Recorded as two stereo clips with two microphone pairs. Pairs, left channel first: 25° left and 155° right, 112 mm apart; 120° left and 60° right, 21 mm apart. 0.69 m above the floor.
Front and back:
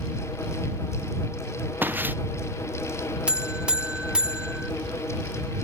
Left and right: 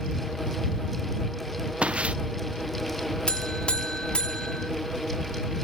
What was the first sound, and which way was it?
Footsteps, 80° right.